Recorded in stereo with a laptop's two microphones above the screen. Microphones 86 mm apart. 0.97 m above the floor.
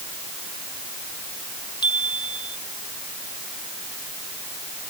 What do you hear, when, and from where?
1.8 s a chime: 60° left (ahead or behind)